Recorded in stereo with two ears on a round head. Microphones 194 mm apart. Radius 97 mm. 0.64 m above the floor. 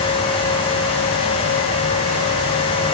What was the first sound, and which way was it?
Only background noise.